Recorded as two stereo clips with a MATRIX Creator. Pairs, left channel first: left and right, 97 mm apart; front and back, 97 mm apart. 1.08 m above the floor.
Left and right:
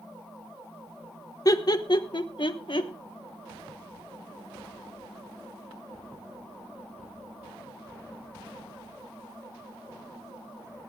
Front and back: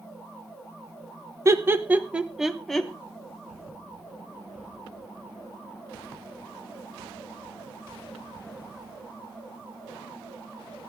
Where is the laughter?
130° left, 1.0 m; by 2.9 s 85° left, 1.3 m.